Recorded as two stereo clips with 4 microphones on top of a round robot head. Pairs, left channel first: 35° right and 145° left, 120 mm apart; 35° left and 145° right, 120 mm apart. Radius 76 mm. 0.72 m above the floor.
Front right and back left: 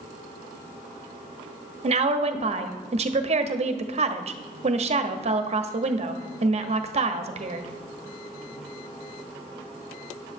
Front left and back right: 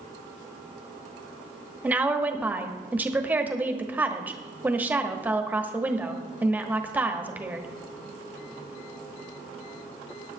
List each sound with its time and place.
1.8 s a woman speaking: 140° left, 1.3 m